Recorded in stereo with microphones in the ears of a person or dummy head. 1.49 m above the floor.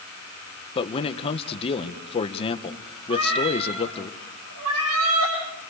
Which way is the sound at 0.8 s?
30° left (ahead or behind).